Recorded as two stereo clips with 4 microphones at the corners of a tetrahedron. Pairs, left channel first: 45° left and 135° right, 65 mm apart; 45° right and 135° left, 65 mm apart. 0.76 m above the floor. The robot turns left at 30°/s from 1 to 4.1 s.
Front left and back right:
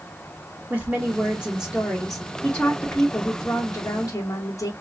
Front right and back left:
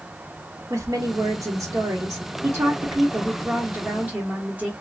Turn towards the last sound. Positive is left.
turn(degrees=70)